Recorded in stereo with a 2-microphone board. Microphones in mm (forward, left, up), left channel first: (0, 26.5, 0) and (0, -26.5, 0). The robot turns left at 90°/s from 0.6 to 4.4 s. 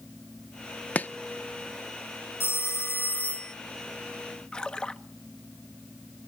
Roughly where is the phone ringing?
Behind left.